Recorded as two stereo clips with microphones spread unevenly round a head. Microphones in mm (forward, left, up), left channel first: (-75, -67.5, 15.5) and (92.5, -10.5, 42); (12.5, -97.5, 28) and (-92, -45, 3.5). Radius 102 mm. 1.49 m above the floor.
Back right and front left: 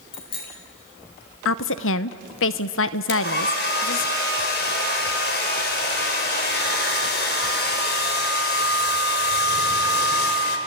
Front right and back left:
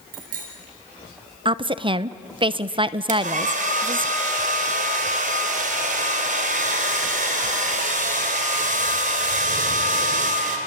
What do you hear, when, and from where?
0.1 s a bicycle bell: 130° left, 4 m
1.4 s a woman speaking: 155° right, 0.7 m
3.1 s a hair dryer: 155° left, 2.5 m